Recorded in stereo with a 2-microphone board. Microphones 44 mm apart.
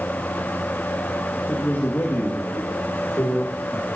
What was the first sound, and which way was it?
A man speaking, 70° left (ahead or behind).